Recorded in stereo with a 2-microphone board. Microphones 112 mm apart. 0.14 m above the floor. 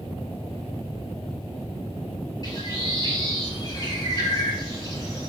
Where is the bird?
40° left (ahead or behind), 2.5 m.